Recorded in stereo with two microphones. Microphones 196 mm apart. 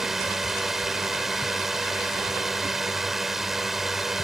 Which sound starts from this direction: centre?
A drone, at 0.0 s.